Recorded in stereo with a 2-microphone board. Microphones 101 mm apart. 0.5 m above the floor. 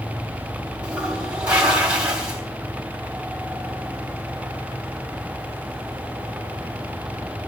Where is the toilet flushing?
10° right (ahead or behind), 3.5 m.